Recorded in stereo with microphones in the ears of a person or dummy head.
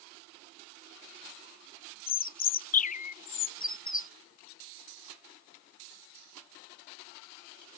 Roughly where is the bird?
Left.